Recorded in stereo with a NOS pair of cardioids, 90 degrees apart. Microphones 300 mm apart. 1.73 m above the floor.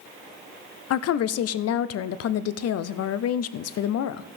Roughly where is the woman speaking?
Ahead left.